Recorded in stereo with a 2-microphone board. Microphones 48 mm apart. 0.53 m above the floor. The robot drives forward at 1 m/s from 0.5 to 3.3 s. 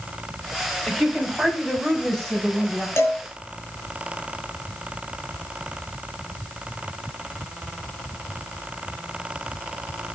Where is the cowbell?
75° left (ahead or behind), 4 m.